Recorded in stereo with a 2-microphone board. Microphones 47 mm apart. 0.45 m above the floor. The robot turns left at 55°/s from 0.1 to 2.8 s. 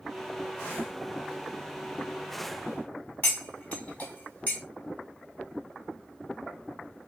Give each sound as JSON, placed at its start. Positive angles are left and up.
{"t": 3.2, "sound": "cutlery clinking", "side_deg": 30, "distance_m": 1.4}